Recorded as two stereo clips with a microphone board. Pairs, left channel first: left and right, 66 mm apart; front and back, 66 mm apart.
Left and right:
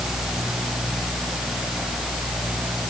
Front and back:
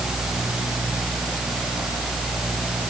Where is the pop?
No pop in this recording.